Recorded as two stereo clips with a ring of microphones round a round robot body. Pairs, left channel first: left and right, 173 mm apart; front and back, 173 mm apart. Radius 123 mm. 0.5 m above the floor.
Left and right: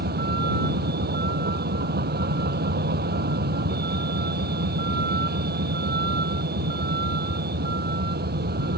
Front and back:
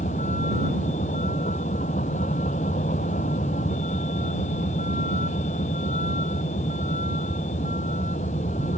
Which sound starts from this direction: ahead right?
A vehicle, at 0.0 s.